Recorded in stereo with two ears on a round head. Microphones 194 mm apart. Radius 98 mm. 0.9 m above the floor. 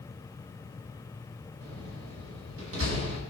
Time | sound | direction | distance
1.6 | a door slam | 65° right (ahead or behind) | 5 m